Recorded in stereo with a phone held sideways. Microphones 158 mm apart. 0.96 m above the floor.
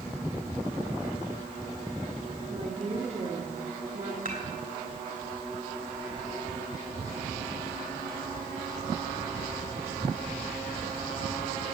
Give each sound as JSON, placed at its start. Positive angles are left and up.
{"t": 2.5, "sound": "a woman speaking", "side_deg": -45, "distance_m": 2.0}
{"t": 4.2, "sound": "dishes clattering", "side_deg": -60, "distance_m": 3.0}